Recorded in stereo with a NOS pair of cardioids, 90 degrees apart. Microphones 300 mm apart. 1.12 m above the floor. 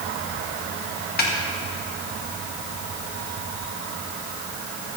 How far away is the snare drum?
About 1.8 m.